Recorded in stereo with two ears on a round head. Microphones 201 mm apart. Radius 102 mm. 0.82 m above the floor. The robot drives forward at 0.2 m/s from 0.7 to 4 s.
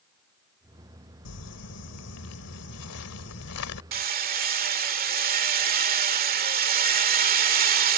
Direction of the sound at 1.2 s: 85° left.